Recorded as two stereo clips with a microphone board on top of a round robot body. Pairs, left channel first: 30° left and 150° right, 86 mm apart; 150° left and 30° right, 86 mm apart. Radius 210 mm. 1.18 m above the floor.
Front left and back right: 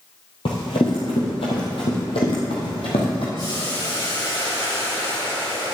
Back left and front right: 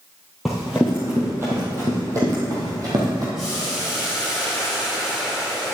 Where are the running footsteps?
60° left, 1.6 m; by 3.2 s 15° left, 2.5 m.